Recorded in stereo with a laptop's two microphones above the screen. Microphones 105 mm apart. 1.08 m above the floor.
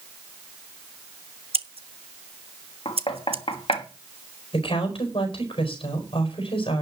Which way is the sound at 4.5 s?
60° left (ahead or behind).